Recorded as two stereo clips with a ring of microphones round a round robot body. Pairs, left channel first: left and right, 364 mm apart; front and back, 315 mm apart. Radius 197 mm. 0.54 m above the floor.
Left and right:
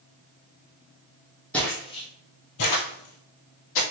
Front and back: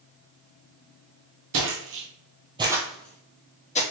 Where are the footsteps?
175° left, 0.8 m; by 3.8 s 65° left, 0.9 m.